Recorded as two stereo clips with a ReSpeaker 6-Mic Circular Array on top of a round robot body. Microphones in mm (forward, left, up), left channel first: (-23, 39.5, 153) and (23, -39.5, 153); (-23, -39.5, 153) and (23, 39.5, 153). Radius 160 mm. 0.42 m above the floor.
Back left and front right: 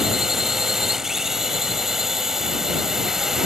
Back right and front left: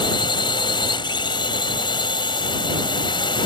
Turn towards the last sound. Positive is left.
turn(degrees=-145)